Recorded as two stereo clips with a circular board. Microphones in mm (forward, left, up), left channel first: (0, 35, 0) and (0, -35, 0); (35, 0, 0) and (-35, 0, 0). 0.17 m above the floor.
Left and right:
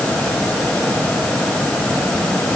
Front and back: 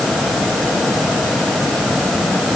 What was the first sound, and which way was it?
Only background noise.